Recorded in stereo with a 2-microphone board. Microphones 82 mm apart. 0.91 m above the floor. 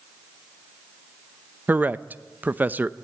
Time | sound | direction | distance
1.7 | a man speaking | 25° right (ahead or behind) | 0.6 m